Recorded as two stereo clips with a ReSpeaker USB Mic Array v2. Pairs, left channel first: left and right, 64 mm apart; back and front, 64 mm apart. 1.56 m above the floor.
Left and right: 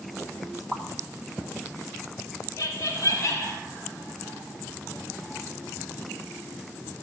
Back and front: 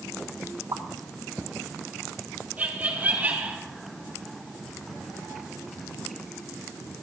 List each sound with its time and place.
0.7 s a pop: straight ahead, 1.6 m
2.6 s laughter: 65° left, 4 m